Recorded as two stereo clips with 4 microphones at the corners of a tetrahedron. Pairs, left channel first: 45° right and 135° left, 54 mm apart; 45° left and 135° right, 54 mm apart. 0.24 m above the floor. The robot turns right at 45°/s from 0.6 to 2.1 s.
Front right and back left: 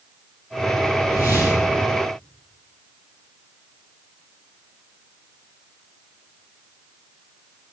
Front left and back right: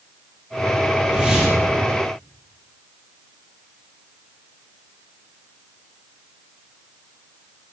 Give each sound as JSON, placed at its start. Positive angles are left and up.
{"t": 1.0, "sound": "a whoosh", "azimuth_deg": -65, "distance_m": 4.0}